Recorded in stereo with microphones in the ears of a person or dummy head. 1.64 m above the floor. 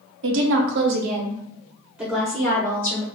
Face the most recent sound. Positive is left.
turn(degrees=15)  # may be behind; listen again after turning